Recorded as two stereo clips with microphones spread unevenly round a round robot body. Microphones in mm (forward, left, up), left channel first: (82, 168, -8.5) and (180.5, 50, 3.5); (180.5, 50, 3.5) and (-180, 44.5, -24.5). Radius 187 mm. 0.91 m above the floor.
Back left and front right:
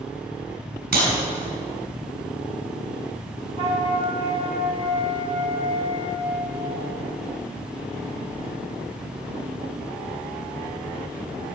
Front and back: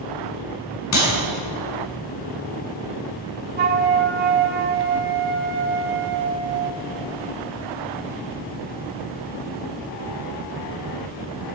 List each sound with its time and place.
0.9 s a clap: 50° right, 7 m
3.6 s a flute: 115° right, 1.1 m